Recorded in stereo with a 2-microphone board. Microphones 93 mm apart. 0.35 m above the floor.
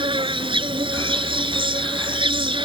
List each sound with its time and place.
0.0 s an insect: 80° right